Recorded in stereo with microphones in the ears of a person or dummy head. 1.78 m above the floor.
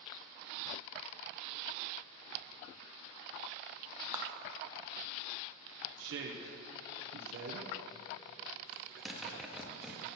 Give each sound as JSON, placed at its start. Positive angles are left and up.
{"t": 4.1, "sound": "a clap", "side_deg": -15, "distance_m": 0.5}
{"t": 6.0, "sound": "a woman speaking", "side_deg": -60, "distance_m": 0.7}
{"t": 8.7, "sound": "a zipper", "side_deg": 0, "distance_m": 0.8}